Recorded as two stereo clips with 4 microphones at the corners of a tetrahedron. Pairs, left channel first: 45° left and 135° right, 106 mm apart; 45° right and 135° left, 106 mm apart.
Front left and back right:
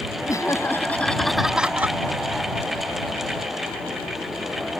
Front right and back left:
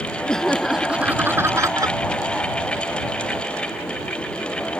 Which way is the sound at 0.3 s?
30° left.